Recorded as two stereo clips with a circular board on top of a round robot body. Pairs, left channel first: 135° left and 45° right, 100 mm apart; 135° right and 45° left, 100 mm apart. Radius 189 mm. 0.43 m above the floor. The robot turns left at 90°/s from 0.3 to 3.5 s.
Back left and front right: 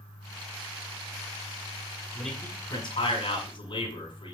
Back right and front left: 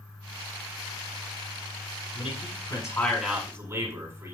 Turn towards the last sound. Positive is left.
turn(degrees=105)